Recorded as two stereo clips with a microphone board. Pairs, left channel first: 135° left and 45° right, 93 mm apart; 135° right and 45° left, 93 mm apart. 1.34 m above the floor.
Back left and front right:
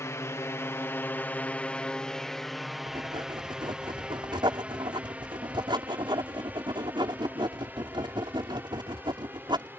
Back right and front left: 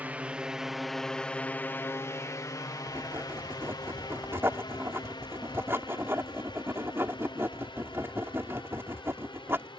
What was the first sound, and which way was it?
A drone, 105° left.